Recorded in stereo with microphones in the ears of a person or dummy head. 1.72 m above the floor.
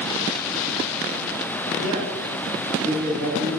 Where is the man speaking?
65° right (ahead or behind), 3.5 m; by 3.6 s 55° right (ahead or behind), 4 m.